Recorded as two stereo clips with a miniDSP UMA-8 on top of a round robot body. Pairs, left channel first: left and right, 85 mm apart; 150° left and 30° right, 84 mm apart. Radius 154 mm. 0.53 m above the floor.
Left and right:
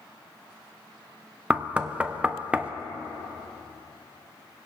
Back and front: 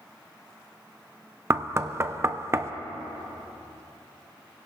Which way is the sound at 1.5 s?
30° right.